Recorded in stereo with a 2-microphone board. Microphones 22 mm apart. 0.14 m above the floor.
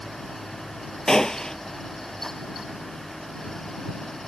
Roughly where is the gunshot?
Left.